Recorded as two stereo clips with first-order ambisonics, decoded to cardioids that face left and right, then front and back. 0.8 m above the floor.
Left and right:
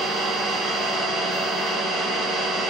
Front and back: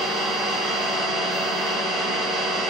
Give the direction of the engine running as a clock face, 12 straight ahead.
5 o'clock.